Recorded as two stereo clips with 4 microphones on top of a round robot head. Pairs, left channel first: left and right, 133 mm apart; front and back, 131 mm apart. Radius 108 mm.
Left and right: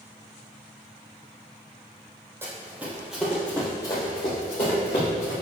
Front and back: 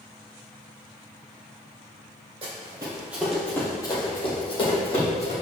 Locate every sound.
2.4 s running footsteps: 150° right, 1.8 m; by 5.3 s 30° left, 3 m